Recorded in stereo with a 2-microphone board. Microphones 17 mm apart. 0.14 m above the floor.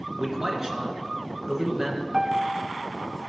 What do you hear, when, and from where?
0.2 s a man speaking: 35° right (ahead or behind), 1.6 m
2.1 s a piano: 25° right (ahead or behind), 0.6 m